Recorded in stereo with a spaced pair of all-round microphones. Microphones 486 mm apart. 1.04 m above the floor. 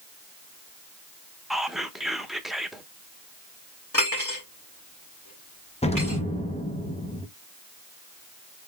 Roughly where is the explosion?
Centre.